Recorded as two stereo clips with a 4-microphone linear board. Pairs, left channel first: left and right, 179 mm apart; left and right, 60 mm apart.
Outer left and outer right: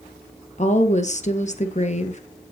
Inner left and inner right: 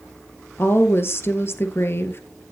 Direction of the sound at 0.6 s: 40° left (ahead or behind).